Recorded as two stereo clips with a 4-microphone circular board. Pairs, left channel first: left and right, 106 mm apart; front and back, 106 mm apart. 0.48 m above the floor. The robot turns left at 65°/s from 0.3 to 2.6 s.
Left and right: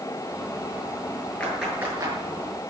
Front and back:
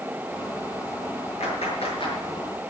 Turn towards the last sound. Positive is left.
turn(degrees=-70)